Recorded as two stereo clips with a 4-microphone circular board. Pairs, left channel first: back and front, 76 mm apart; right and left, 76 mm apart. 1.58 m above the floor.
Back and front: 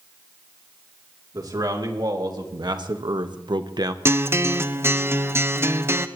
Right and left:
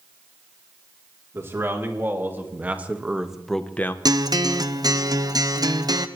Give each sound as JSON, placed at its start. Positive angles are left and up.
{"t": 1.3, "sound": "a man speaking", "azimuth_deg": 35, "distance_m": 3.5}
{"t": 4.0, "sound": "a guitar", "azimuth_deg": 55, "distance_m": 0.8}